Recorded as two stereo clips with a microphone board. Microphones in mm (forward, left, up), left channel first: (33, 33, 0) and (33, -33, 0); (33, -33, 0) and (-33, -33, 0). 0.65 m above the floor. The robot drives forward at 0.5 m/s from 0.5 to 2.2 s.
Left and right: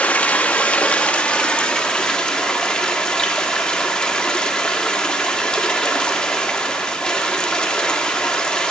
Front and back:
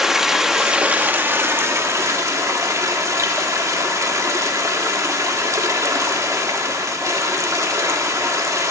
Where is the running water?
105° left, 0.7 m; by 8.7 s 165° left, 1.2 m.